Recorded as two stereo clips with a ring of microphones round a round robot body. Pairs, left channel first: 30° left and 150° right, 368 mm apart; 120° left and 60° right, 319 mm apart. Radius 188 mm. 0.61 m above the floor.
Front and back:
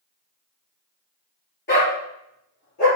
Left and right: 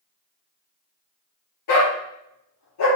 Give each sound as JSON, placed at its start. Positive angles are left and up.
{"t": 1.7, "sound": "a dog barking", "azimuth_deg": 95, "distance_m": 4.0}